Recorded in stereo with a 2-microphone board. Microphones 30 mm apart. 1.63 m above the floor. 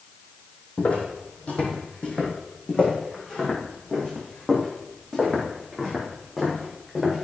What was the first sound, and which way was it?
Footsteps, 50° left (ahead or behind).